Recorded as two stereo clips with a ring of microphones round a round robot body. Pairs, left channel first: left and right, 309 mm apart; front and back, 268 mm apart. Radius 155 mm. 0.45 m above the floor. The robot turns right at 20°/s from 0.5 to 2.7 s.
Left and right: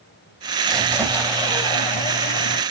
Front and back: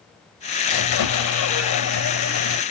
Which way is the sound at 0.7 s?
Straight ahead.